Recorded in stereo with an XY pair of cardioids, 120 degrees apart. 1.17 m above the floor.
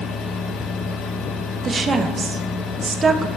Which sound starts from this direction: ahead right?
A woman speaking, at 1.6 s.